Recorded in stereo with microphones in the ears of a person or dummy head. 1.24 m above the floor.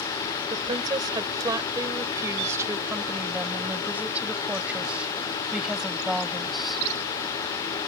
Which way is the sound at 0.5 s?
30° right (ahead or behind).